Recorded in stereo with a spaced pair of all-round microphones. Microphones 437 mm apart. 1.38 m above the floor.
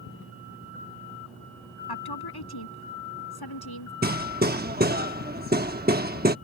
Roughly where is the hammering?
Right.